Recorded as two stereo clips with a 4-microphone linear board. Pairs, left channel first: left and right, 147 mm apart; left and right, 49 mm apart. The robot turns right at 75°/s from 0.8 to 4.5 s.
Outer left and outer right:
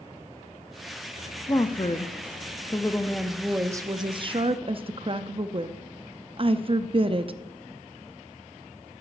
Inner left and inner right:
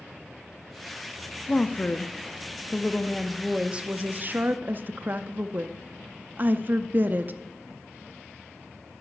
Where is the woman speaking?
45° left, 0.5 m; by 7.3 s 90° right, 0.5 m.